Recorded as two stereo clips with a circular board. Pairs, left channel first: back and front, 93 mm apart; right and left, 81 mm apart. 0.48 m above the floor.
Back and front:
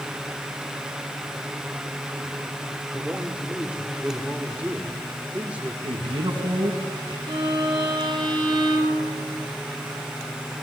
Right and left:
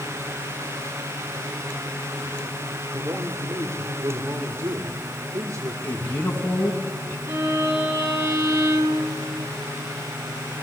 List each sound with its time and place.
2.9 s a man speaking: 65° left, 1.7 m
5.8 s a man speaking: 25° right, 4 m
7.3 s a violin: 35° left, 5 m